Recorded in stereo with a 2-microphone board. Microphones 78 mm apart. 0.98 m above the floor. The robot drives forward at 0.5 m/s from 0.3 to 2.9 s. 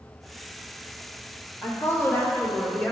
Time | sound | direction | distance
1.6 | a woman speaking | 35° left (ahead or behind) | 1.3 m